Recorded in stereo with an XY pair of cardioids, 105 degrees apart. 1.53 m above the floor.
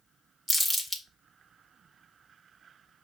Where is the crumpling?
Straight ahead, 1.3 m.